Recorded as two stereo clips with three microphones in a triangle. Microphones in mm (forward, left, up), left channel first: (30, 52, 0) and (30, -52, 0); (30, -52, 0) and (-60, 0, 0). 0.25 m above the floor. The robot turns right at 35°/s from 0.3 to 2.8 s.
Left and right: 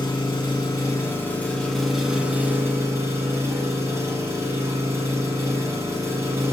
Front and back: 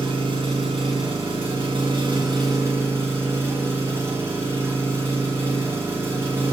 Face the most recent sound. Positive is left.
turn(degrees=-150)